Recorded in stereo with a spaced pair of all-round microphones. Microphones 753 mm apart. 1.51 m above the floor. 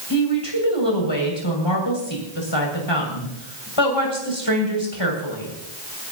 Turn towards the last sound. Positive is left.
turn(degrees=35)  # may be behind; listen again after turning